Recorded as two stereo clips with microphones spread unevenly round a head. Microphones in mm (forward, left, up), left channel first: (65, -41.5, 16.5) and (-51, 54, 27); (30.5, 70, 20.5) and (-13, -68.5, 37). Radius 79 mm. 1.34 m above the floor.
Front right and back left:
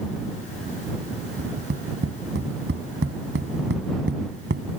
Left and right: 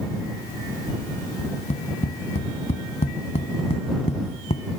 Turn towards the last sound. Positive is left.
turn(degrees=125)